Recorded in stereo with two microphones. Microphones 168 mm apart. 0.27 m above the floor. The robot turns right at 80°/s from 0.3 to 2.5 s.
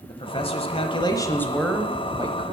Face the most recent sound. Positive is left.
turn(degrees=-115)